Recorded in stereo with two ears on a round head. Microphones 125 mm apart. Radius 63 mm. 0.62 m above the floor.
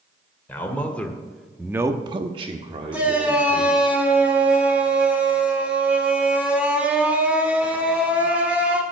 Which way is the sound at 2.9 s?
10° right (ahead or behind).